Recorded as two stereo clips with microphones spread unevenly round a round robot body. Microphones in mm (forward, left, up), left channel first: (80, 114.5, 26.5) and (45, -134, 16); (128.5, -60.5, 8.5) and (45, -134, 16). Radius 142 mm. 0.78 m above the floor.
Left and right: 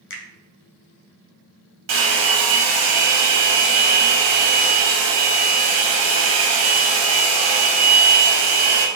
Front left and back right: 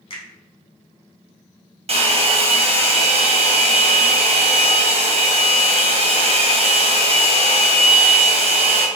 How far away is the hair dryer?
About 1.0 m.